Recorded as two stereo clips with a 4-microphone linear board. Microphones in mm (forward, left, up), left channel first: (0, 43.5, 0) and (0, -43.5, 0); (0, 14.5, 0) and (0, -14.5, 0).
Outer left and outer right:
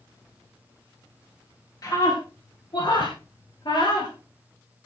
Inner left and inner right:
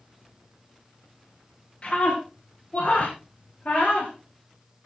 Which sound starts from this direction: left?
A scream, at 1.8 s.